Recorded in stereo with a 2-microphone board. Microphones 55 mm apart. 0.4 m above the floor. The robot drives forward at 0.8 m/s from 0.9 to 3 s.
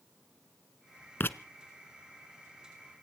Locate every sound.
1.2 s writing: 40° left (ahead or behind), 0.7 m; by 1.4 s 50° left (ahead or behind), 0.6 m